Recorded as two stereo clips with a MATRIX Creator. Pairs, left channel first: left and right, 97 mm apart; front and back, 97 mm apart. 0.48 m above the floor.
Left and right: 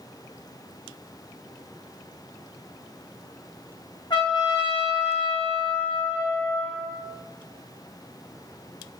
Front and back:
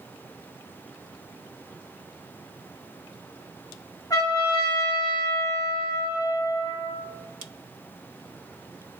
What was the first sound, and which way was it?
A trumpet, 50° left.